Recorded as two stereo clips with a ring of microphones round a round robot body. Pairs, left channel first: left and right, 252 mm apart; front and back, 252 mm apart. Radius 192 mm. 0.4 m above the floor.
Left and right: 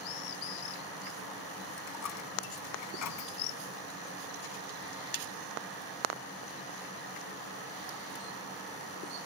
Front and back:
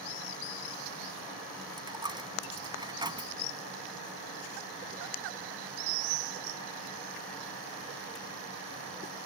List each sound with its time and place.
1.8 s a dropped coin: 105° left